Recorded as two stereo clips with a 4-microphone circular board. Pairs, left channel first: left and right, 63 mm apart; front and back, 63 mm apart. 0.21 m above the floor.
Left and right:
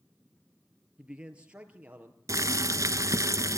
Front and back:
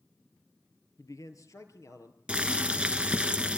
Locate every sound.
1.0 s a man speaking: 15° right, 3 m; by 2.2 s 25° right, 4 m
2.3 s boiling: 110° right, 0.7 m